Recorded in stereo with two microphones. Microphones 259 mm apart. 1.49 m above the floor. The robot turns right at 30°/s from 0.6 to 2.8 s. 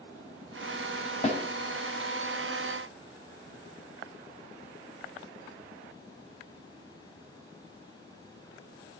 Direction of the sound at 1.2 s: 30° left (ahead or behind).